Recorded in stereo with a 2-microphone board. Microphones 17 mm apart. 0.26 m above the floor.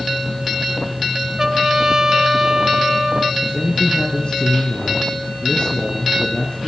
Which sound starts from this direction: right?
A trumpet, at 1.4 s.